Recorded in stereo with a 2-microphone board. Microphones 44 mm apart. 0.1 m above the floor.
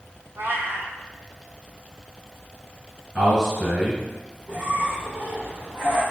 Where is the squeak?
20° right (ahead or behind), 1.5 m.